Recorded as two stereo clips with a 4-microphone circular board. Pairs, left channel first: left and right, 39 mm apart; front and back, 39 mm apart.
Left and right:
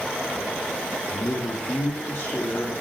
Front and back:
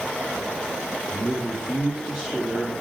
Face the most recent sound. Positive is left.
turn(degrees=80)